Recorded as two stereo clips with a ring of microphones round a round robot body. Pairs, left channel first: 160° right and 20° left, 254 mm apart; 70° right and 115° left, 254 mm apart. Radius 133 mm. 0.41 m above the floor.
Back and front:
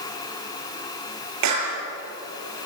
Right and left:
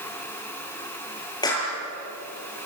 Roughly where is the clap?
Ahead.